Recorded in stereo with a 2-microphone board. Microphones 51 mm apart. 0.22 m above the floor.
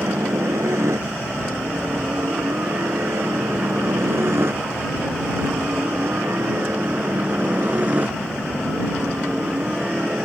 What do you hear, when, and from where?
0.0 s a helicopter: 70° right (ahead or behind); by 10.2 s 20° right (ahead or behind)